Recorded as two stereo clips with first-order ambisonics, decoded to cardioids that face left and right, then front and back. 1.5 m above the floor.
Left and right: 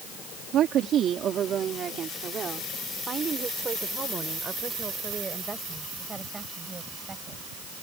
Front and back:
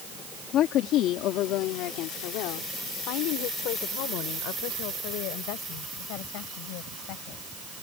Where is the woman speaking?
45° right; by 7.4 s 10° right.